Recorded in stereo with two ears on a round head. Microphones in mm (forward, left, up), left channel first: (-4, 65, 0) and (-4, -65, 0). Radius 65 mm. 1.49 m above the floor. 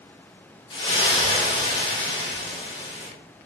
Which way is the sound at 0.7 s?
35° left (ahead or behind).